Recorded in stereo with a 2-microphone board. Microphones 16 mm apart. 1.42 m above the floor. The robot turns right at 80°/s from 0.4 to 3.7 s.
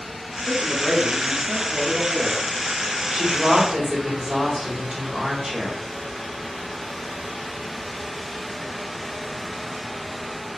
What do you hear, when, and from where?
0.5 s a man speaking: 110° left, 0.7 m; by 2.5 s 90° right, 0.7 m
3.1 s a woman speaking: 85° right, 1.7 m; by 5.8 s 35° right, 1.7 m